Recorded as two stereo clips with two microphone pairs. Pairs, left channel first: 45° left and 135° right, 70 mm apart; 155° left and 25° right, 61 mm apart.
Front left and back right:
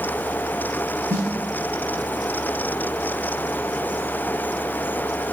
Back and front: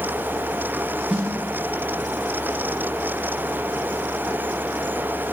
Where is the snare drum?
105° right, 3.5 m.